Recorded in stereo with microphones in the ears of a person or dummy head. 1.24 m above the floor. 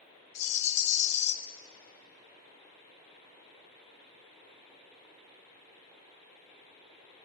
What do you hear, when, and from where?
0.3 s a rattle: 30° left (ahead or behind), 0.6 m